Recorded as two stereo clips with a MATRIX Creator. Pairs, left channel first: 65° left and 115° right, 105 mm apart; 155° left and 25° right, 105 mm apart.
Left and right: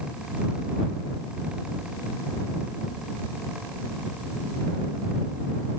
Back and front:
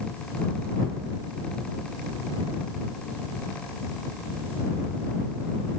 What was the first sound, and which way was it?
Only background noise.